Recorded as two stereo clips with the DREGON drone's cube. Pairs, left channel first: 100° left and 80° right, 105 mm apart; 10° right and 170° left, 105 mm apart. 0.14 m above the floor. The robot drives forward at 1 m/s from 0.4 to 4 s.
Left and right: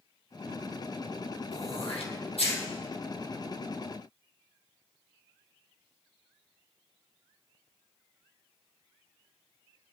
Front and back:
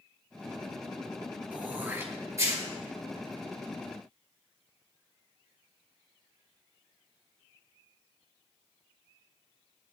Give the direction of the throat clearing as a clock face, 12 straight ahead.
9 o'clock.